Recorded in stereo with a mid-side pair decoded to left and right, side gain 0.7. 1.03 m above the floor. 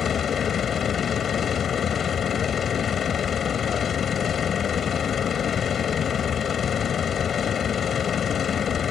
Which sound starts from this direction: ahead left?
A machine running, at 0.0 s.